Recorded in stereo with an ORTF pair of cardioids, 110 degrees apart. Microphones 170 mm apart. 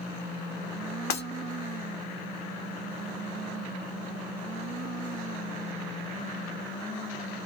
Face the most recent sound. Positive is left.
turn(degrees=70)